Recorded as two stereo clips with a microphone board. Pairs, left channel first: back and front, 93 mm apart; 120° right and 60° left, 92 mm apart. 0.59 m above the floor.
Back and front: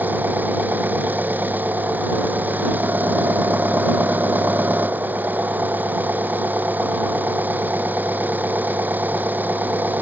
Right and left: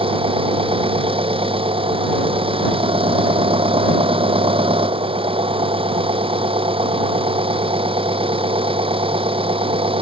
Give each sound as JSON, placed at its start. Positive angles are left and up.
{"t": 0.0, "sound": "an engine running", "azimuth_deg": 70}